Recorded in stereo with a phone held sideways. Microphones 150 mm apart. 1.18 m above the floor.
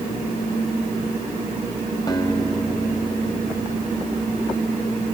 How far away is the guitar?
About 3 m.